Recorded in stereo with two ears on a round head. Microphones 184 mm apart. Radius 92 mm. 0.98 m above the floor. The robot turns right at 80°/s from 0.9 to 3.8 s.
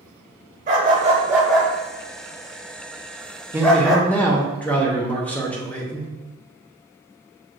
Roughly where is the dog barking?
Right.